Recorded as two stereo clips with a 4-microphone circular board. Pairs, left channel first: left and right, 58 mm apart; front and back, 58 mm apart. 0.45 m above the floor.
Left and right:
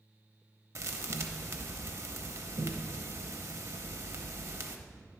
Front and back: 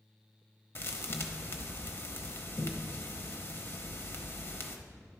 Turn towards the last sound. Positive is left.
turn(degrees=-50)